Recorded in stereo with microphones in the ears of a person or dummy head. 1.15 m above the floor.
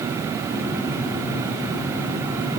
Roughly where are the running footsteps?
I don't hear running footsteps.